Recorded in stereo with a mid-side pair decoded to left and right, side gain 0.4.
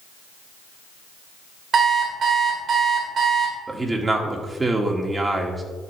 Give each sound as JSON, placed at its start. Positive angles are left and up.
{"t": 1.7, "sound": "an alarm clock", "azimuth_deg": -60, "distance_m": 3.0}
{"t": 3.7, "sound": "a man speaking", "azimuth_deg": -30, "distance_m": 2.0}